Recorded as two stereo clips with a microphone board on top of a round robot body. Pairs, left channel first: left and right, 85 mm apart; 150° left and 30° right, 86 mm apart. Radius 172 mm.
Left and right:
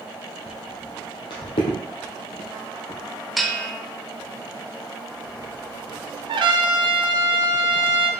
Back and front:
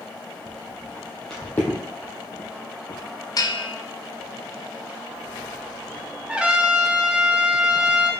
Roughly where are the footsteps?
Ahead.